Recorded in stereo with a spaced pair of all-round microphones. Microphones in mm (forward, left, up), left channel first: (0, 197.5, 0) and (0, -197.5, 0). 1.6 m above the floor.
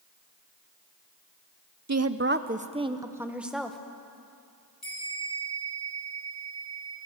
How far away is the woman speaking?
About 0.7 m.